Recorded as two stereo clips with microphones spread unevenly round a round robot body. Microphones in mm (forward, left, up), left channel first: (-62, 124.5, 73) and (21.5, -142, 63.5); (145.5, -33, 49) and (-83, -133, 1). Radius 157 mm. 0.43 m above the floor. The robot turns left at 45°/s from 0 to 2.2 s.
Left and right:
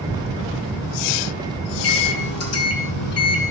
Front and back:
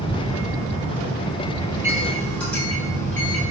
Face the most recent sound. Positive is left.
turn(degrees=115)